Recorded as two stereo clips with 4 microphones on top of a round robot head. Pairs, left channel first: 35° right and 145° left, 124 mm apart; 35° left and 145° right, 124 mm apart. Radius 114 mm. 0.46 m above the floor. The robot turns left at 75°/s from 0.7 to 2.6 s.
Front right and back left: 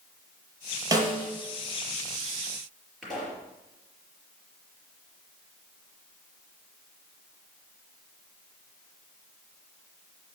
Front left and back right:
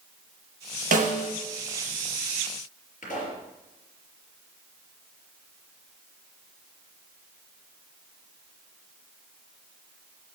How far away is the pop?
About 5 m.